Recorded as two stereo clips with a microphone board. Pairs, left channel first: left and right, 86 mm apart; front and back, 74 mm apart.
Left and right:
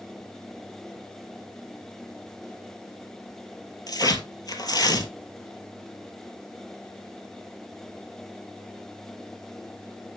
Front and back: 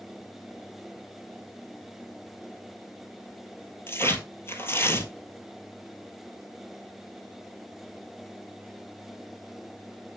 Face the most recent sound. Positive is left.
turn(degrees=55)